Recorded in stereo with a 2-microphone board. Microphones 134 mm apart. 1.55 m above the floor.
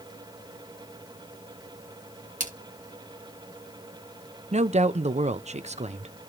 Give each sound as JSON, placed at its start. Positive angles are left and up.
{"t": 2.4, "sound": "a splash", "side_deg": -75, "distance_m": 2.5}
{"t": 4.5, "sound": "a woman speaking", "side_deg": -60, "distance_m": 0.6}